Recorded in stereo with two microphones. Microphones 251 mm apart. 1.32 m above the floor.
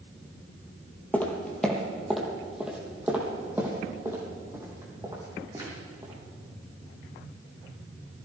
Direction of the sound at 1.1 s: 5° left (ahead or behind).